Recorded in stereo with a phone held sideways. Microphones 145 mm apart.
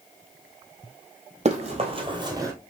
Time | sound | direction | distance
1.4 | running footsteps | 50° right (ahead or behind) | 2.0 m